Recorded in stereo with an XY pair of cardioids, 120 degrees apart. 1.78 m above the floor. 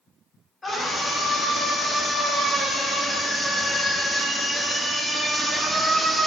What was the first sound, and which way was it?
A scream, 20° left.